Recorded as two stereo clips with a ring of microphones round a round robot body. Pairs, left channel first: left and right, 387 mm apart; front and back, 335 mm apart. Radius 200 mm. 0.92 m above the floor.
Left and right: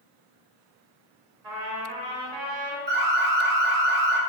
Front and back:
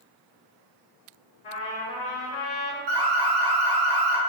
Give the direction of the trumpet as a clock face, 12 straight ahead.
2 o'clock.